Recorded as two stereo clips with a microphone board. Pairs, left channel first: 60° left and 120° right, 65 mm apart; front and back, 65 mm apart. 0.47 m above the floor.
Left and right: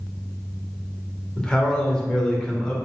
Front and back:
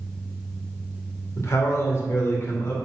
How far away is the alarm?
I don't hear an alarm.